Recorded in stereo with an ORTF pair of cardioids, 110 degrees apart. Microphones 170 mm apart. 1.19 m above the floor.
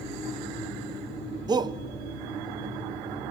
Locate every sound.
1.5 s a shout: 25° right, 1.1 m